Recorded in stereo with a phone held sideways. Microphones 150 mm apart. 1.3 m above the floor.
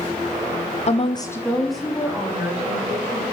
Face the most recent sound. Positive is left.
turn(degrees=-15)  # may be behind; listen again after turning